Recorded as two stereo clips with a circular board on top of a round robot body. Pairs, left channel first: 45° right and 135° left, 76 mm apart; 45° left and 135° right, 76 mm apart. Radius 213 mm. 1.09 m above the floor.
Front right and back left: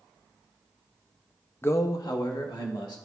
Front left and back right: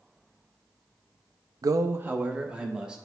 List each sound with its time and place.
1.6 s a man speaking: 105° right, 0.5 m; by 3.0 s 60° right, 1.7 m